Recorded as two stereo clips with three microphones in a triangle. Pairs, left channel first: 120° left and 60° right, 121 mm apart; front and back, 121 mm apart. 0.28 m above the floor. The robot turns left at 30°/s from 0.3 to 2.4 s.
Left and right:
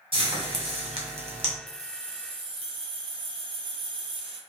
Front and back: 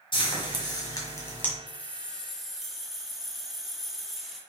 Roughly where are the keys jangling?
Right.